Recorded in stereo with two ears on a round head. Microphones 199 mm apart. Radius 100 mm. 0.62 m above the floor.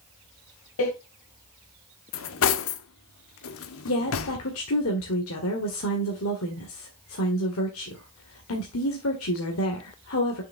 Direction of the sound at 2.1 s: 70° left (ahead or behind).